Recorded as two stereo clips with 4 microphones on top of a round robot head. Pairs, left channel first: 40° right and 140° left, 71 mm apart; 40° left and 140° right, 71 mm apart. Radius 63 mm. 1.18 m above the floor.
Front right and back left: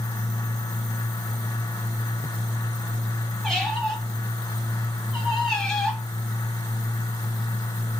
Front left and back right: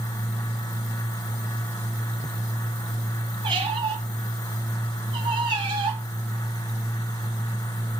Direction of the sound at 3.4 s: 125° right.